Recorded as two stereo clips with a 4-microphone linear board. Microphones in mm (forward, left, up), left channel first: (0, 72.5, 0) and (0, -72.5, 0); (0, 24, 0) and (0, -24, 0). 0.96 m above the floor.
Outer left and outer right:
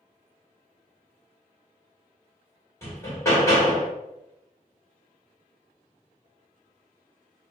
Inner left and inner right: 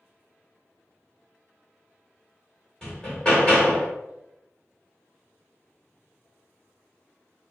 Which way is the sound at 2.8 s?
20° left (ahead or behind).